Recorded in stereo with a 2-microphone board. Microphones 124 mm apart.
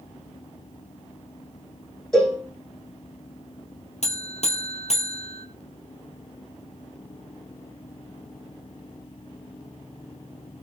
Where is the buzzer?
60° left (ahead or behind), 2 m.